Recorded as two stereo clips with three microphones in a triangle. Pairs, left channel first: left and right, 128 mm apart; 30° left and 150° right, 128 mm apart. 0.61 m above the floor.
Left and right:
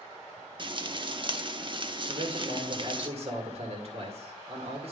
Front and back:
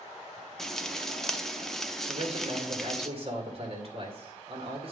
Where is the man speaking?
115° right, 2.0 m.